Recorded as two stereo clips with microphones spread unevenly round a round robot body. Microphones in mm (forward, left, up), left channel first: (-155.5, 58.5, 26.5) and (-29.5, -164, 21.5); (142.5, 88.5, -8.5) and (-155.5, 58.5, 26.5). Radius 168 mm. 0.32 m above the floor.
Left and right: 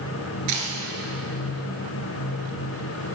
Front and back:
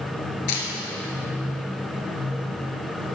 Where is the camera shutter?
35° right, 1.6 m.